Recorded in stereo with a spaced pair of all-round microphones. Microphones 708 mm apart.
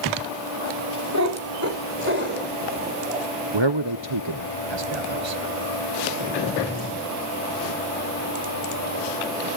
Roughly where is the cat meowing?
Right.